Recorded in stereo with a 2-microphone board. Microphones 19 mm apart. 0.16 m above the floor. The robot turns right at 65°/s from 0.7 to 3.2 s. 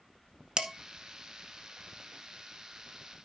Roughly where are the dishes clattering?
Right.